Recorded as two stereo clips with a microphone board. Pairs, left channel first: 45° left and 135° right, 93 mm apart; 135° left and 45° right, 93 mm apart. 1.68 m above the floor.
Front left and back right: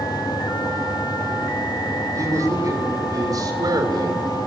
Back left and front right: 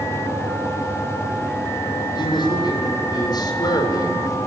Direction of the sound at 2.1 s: 170° left.